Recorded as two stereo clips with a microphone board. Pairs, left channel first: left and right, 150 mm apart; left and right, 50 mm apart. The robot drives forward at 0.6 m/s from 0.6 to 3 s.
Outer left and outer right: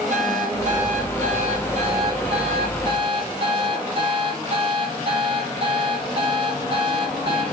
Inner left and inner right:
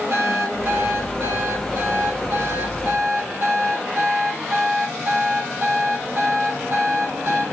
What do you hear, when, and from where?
0.1 s an alarm clock: 55° right (ahead or behind), 3.5 m; by 7.4 s 40° right (ahead or behind), 4.5 m